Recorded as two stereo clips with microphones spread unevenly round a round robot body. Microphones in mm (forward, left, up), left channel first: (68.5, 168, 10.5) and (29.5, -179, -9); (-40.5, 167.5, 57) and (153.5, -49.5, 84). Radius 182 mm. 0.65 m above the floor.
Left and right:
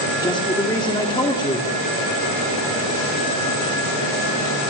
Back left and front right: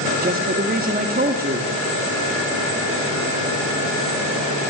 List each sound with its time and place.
0.2 s a man speaking: 5° left, 1.9 m